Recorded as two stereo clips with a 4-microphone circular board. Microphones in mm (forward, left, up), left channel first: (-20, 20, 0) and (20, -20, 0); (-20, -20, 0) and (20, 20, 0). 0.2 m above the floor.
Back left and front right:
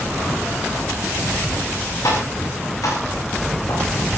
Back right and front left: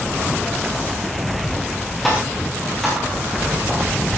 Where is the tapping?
140° left, 8.5 m.